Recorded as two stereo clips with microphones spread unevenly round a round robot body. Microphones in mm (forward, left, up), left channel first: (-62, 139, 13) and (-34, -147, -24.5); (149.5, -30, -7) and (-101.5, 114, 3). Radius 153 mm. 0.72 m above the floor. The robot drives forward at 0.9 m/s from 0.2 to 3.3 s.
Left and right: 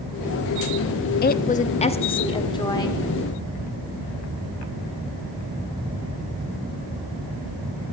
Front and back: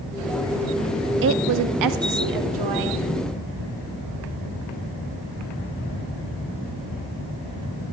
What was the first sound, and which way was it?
A woman speaking, 140° left.